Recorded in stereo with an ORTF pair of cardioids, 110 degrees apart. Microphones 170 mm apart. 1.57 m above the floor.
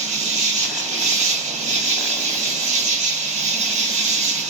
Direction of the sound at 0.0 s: 45° right.